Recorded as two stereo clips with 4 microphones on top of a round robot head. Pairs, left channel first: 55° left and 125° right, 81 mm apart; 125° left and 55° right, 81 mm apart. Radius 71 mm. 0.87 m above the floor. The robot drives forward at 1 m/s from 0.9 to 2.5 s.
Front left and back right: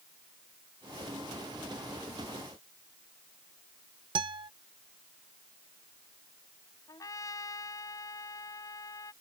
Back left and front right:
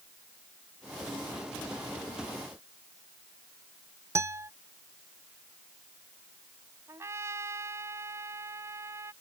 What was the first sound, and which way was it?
A guitar, 110° right.